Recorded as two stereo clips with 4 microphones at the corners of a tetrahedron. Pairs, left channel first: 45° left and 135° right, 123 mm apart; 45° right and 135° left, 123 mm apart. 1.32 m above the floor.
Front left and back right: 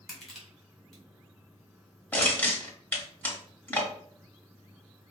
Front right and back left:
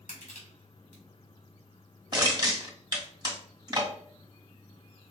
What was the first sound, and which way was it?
Crushing, 40° right.